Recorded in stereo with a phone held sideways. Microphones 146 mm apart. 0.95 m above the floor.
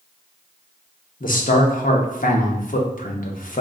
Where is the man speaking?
70° left (ahead or behind), 0.8 m.